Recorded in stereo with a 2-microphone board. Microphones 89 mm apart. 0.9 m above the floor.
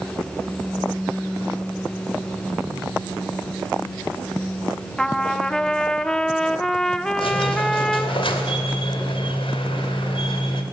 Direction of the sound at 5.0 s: 5° left (ahead or behind).